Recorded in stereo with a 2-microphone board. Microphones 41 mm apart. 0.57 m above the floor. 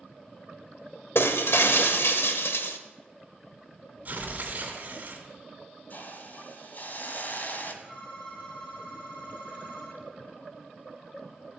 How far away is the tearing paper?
About 3 m.